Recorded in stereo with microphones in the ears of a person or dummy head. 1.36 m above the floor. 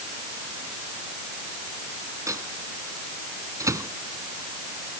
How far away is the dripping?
I don't hear dripping.